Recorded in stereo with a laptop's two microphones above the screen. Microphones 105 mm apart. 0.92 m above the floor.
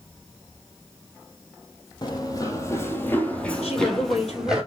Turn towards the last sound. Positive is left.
turn(degrees=80)